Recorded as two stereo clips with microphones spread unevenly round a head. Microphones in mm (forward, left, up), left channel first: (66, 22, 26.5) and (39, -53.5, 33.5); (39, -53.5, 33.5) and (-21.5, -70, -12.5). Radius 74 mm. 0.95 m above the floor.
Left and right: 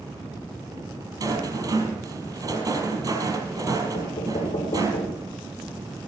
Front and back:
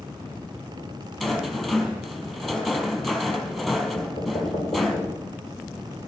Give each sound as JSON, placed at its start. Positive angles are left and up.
{"t": 1.2, "sound": "a rattle", "azimuth_deg": -65, "distance_m": 4.5}
{"t": 3.9, "sound": "knocking", "azimuth_deg": 70, "distance_m": 2.5}